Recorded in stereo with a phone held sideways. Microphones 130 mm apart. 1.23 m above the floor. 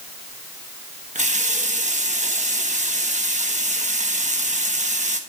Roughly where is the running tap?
Right.